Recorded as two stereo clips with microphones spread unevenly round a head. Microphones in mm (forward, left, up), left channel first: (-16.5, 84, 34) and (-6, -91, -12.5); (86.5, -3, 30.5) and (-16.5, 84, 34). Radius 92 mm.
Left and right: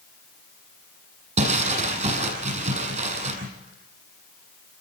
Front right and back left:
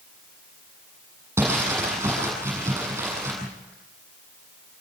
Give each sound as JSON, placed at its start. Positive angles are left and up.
{"t": 1.4, "sound": "crumpling", "azimuth_deg": -140, "distance_m": 8.0}